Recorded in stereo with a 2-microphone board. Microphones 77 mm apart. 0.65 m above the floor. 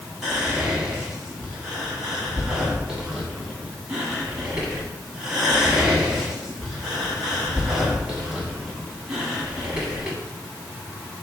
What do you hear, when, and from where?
0.2 s whispering: 10° right (ahead or behind), 1.3 m